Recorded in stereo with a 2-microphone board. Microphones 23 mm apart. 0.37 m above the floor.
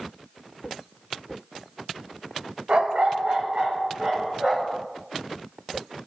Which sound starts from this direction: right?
A dog barking, at 2.7 s.